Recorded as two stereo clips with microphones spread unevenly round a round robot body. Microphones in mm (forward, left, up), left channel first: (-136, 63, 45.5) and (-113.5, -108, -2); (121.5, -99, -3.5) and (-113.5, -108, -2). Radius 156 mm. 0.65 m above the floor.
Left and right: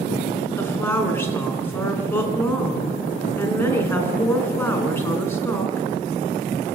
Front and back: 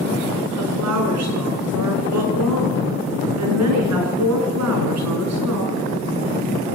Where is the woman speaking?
175° left, 6 m.